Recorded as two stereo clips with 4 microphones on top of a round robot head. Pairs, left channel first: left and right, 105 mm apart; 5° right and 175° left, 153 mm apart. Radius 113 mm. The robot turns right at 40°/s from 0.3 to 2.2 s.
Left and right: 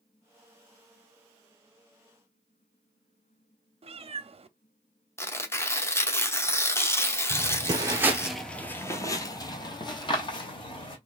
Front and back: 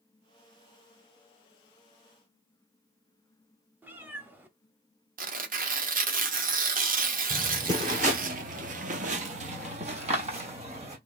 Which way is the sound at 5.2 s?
155° left.